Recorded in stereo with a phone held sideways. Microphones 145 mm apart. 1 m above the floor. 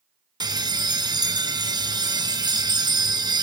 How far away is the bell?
About 0.8 m.